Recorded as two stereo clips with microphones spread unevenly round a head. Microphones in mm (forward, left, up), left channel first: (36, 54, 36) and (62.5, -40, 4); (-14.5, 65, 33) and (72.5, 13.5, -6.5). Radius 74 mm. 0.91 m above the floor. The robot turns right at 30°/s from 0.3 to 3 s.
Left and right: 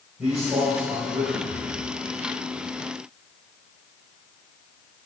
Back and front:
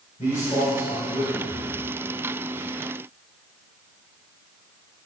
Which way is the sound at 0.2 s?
160° right.